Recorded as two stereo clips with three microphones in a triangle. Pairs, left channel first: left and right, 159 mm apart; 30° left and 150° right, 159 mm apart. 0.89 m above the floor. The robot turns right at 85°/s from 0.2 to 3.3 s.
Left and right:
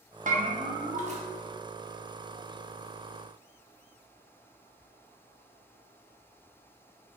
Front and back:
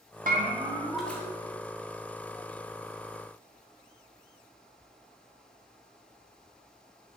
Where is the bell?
125° right, 0.6 m; by 1.2 s 40° right, 0.6 m.